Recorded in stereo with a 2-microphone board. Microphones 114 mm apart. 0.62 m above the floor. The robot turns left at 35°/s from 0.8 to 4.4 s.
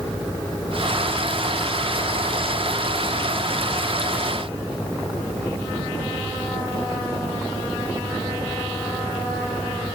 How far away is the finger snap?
No finger snap in this recording.